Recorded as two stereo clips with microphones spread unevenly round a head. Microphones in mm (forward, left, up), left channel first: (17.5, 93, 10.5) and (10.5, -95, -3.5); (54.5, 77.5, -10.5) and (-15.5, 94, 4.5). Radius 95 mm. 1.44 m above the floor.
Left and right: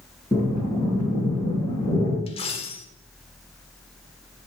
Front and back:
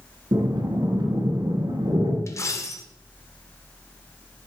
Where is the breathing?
160° left, 4.5 m.